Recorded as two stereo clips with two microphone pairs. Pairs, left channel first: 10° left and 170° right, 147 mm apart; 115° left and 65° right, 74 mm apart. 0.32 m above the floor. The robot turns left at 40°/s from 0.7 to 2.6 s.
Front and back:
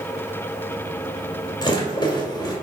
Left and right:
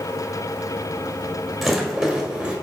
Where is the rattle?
25° left, 1.7 m; by 2.5 s 15° right, 1.7 m.